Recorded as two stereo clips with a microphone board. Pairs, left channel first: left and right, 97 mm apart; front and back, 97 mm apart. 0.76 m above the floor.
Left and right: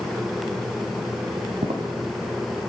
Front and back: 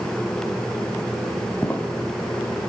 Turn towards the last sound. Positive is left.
turn(degrees=-75)